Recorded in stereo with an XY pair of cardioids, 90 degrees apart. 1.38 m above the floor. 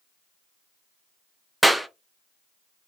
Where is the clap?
5° right, 0.5 m.